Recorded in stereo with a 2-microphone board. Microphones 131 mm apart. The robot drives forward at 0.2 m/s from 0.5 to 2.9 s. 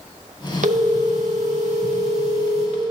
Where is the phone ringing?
65° right (ahead or behind), 1.0 m; by 2.8 s 55° right (ahead or behind), 1.1 m.